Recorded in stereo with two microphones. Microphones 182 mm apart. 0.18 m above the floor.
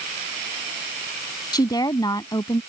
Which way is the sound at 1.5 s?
20° left (ahead or behind).